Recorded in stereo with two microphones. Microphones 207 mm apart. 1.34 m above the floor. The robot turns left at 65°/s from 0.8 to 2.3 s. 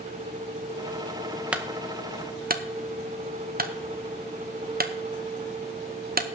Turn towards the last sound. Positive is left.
turn(degrees=-45)  # may be behind; listen again after turning